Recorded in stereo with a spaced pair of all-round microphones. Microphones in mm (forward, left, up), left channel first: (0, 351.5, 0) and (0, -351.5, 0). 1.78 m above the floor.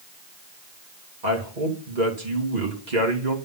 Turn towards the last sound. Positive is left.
turn(degrees=-75)  # may be behind; listen again after turning